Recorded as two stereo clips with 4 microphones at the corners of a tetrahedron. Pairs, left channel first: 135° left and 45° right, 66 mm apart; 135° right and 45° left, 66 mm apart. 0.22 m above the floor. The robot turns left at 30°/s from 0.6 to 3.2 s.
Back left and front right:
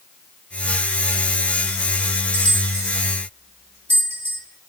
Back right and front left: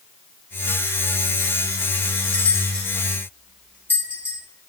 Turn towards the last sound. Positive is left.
turn(degrees=-90)